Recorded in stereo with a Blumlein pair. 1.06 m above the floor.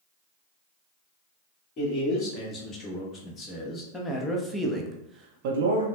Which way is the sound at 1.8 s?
30° left.